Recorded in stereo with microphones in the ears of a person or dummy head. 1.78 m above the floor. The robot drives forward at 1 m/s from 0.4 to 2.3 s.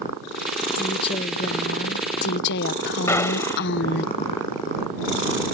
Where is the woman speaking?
30° left (ahead or behind); by 4.1 s 65° left (ahead or behind).